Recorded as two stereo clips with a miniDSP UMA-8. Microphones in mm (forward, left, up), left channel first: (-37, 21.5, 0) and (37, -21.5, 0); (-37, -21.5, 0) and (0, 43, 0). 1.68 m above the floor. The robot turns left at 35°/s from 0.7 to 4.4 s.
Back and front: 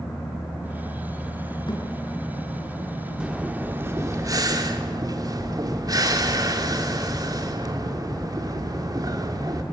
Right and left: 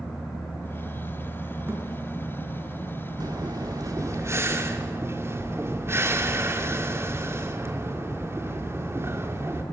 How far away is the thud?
About 5.5 m.